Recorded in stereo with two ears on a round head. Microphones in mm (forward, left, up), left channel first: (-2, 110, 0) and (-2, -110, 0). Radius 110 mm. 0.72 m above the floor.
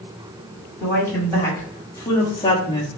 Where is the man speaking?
10° left (ahead or behind), 2 m; by 2.9 s 20° left (ahead or behind), 1.1 m.